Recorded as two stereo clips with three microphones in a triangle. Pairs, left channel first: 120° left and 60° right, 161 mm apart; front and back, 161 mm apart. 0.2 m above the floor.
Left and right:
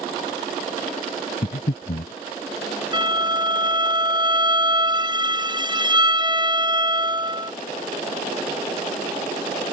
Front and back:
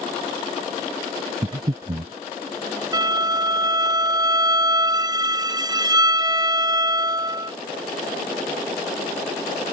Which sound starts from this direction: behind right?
A violin, at 2.9 s.